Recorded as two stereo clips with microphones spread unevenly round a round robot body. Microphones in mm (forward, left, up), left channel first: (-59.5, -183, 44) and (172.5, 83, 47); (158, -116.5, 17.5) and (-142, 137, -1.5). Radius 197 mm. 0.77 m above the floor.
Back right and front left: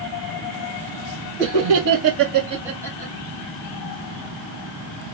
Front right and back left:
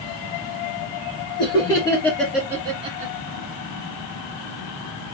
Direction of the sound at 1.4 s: 40° left.